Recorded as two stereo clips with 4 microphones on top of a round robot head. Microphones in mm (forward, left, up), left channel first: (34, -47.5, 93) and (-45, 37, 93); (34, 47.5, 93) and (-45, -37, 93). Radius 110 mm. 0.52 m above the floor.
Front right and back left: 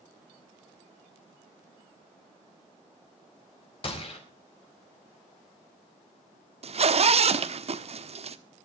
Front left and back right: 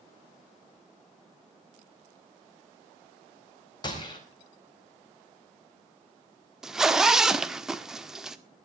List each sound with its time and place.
3.8 s a gunshot: 5° right, 4.5 m
6.6 s a zipper: 140° left, 1.4 m